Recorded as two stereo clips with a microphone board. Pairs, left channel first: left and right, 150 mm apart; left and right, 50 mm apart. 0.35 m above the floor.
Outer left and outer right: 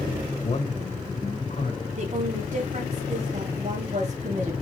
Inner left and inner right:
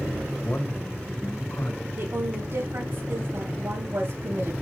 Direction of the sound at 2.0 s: 50° right (ahead or behind).